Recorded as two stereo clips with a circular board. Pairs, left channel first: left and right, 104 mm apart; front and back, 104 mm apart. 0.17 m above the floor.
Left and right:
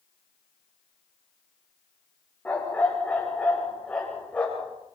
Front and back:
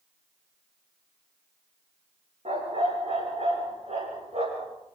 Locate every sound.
2.5 s a dog barking: 165° left, 8.5 m; by 4.7 s 170° left, 11.5 m